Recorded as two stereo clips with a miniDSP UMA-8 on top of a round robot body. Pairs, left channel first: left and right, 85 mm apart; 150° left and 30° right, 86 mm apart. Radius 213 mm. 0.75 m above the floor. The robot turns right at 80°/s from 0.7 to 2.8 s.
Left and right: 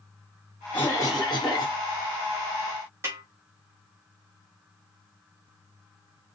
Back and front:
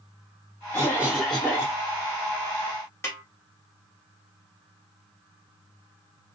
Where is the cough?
25° left, 1.9 m; by 1.8 s 110° left, 1.9 m.